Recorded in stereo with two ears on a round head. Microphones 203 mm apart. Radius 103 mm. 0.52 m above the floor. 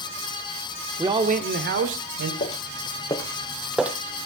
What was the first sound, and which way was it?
A man speaking, 10° right (ahead or behind).